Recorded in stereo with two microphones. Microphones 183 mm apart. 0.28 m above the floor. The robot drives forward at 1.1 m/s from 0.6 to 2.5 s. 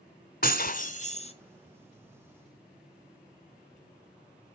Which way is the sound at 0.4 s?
55° left (ahead or behind).